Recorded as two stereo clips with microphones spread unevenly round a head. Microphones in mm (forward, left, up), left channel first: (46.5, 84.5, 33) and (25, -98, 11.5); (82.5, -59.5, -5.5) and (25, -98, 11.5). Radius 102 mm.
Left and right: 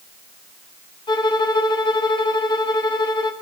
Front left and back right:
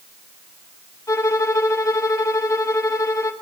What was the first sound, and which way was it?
A violin, 55° left.